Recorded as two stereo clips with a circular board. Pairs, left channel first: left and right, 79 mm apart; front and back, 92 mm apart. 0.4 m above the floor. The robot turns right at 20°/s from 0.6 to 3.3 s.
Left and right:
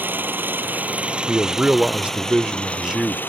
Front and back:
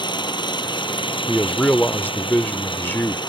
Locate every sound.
0.0 s an engine running: 25° right; by 3.3 s 25° left
1.3 s a man speaking: 55° right; by 3.2 s 15° right